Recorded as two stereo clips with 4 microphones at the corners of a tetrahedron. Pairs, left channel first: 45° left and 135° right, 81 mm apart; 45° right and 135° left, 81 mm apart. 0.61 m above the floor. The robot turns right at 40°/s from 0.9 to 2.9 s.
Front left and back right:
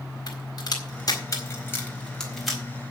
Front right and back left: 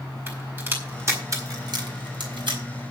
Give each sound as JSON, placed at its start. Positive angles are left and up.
{"t": 0.3, "sound": "a crack", "azimuth_deg": 75, "distance_m": 4.5}